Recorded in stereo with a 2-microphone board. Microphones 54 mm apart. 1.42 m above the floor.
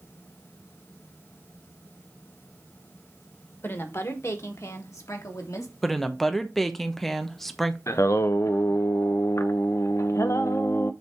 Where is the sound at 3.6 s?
45° left (ahead or behind), 1.3 m; by 5.7 s 80° left, 2 m.